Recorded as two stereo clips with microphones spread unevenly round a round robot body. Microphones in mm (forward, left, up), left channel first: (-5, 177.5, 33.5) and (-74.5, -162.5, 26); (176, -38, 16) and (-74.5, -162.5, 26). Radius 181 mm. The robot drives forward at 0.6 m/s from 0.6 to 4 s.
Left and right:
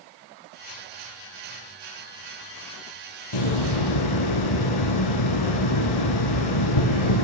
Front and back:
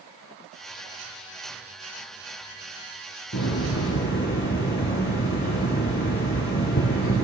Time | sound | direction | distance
3.3 | a hiss | 90° left | 4.5 m